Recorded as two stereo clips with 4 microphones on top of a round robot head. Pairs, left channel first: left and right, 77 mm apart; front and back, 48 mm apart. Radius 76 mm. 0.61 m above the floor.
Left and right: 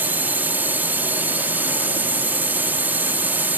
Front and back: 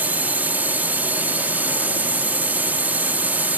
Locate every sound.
0.0 s a drone: 145° right